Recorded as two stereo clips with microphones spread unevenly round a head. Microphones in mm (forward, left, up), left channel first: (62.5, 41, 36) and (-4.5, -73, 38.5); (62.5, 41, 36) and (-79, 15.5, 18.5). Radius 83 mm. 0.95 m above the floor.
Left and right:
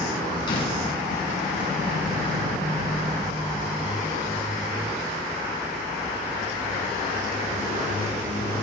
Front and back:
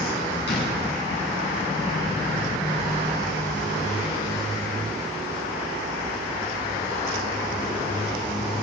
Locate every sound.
0.5 s a door slam: 5° left, 9 m